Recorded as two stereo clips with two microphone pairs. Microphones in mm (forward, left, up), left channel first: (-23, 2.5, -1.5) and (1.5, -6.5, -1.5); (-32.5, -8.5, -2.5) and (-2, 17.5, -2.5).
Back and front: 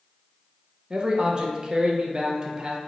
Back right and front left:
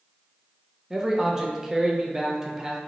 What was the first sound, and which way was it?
A man speaking, 25° right.